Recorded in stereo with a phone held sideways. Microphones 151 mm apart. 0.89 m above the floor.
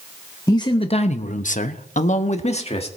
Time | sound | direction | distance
0.5 | a man speaking | 25° left (ahead or behind) | 1.0 m